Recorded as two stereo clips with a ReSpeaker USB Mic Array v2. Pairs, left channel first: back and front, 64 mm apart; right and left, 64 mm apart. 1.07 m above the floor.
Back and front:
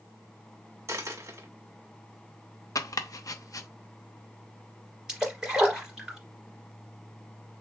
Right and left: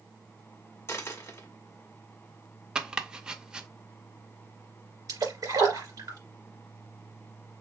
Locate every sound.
0.9 s a dropped coin: 40° right, 1.0 m
2.8 s chopping: 165° left, 0.5 m
5.1 s a splash: 75° left, 2.5 m